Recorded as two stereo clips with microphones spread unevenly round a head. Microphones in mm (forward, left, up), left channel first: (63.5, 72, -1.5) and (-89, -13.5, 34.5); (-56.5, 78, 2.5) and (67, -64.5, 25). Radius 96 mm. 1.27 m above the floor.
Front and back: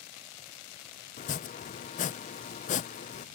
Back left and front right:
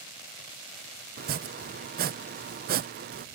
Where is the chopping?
10° right.